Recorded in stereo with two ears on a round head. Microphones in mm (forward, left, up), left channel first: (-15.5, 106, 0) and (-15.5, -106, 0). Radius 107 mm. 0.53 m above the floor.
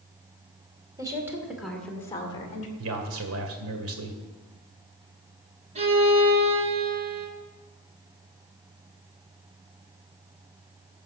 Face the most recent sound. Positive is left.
turn(degrees=-30)  # may be behind; listen again after turning